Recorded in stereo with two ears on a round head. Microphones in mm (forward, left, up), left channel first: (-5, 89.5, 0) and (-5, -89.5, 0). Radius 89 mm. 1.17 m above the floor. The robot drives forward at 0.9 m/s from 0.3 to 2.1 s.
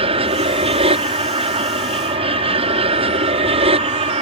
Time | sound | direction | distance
0.0 | an aircraft | 30° right (ahead or behind) | ?